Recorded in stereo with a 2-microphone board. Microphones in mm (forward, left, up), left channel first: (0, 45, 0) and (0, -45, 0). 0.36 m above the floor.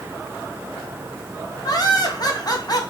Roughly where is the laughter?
Left.